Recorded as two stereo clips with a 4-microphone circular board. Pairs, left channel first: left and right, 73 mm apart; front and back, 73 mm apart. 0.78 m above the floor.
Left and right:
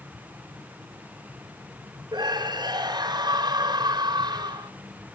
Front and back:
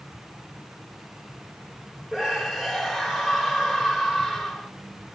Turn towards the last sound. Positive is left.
turn(degrees=-95)